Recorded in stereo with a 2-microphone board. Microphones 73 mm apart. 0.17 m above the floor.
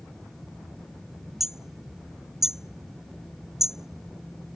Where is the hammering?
5° right (ahead or behind).